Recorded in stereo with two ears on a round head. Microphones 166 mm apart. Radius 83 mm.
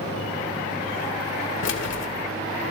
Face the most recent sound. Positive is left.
turn(degrees=65)  # may be behind; listen again after turning